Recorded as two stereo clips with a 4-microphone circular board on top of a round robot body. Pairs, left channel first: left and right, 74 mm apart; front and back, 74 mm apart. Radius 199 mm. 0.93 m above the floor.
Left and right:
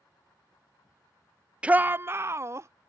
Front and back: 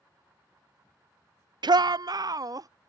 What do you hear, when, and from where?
1.6 s a shout: 165° right; by 2.7 s 140° right